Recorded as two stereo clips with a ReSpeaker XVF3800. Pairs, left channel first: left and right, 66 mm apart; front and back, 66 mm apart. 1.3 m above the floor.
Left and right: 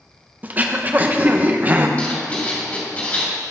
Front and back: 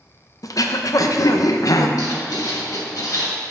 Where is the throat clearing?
25° right, 0.6 m.